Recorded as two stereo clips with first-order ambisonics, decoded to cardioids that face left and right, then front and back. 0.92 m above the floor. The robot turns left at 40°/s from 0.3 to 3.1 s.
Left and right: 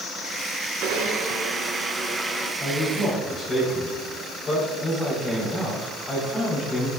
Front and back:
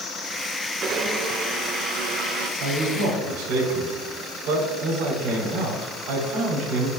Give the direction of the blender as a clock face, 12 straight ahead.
4 o'clock.